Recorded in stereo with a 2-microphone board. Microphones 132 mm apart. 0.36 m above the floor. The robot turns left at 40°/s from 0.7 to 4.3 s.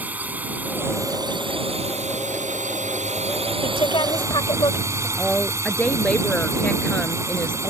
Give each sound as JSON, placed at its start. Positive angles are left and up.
{"t": 0.0, "sound": "a drone", "azimuth_deg": -15}
{"t": 3.6, "sound": "a woman speaking", "side_deg": 45}
{"t": 5.2, "sound": "a woman speaking", "side_deg": 10}